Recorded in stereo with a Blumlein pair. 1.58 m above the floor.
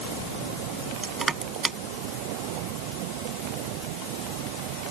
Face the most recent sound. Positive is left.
turn(degrees=-10)